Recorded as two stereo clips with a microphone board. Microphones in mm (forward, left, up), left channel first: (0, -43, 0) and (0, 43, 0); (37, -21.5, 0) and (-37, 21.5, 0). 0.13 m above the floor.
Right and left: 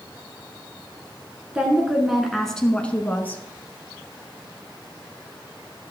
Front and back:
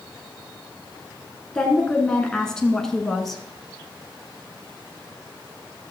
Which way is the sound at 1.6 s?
30° left.